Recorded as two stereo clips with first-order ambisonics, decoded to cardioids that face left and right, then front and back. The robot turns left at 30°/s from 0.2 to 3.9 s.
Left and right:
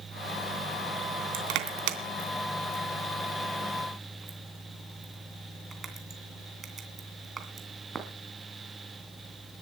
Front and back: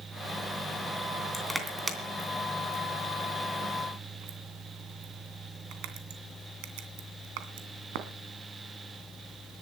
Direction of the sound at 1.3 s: 85° right.